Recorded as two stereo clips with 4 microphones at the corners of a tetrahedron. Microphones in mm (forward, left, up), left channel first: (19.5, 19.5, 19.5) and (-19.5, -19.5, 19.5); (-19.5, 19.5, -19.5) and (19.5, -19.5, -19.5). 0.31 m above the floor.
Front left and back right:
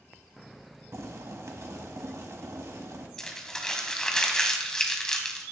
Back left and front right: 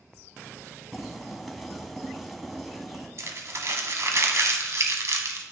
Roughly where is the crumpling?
Ahead right.